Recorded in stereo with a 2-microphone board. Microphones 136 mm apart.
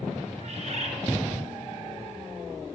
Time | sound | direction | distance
0.4 | a bird | 55° right (ahead or behind) | 1.0 m